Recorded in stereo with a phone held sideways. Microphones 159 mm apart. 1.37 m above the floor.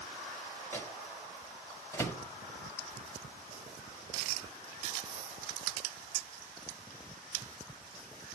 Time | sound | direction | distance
0.7 | a microwave | 15° left (ahead or behind) | 1.0 m